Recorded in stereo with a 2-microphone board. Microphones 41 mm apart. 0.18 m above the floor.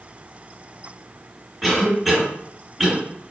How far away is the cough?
About 1.8 m.